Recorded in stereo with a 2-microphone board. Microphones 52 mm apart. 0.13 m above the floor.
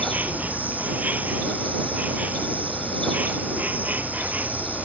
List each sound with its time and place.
0.0 s an insect: 30° right (ahead or behind)